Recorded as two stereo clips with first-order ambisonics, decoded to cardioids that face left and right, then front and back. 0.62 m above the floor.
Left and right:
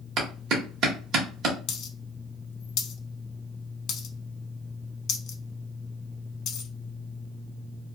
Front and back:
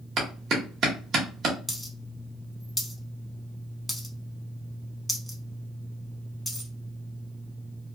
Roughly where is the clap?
Behind right.